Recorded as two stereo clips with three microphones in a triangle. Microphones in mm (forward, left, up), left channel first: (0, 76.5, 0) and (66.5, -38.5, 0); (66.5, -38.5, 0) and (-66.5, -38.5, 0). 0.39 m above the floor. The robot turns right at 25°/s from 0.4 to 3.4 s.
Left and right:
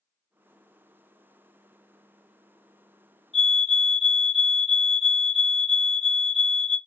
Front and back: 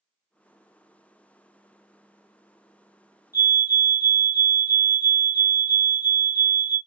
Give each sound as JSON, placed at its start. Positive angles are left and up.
{"t": 3.3, "sound": "a fire alarm", "azimuth_deg": -150, "distance_m": 1.8}